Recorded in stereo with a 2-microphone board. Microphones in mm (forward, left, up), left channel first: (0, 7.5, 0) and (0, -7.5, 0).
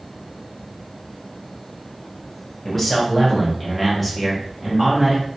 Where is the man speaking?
15° left (ahead or behind), 1.1 m; by 5.2 s centre (ahead or behind), 1.2 m.